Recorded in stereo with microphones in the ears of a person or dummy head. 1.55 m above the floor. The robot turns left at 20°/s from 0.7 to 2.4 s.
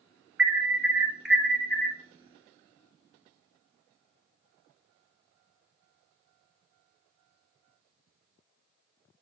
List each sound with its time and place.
0.4 s an alarm: 10° right (ahead or behind), 0.9 m; by 2.0 s 15° left (ahead or behind), 0.9 m